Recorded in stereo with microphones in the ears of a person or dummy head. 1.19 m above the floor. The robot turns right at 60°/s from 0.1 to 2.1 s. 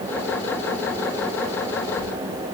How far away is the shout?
I don't hear a shout.